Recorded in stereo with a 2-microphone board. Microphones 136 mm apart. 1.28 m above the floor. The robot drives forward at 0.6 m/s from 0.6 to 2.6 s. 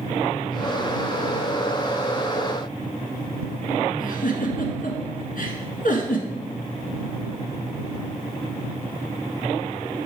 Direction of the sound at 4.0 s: 70° left (ahead or behind).